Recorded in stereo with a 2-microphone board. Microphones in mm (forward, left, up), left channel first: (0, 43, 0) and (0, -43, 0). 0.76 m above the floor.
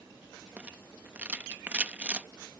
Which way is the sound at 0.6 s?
15° right (ahead or behind).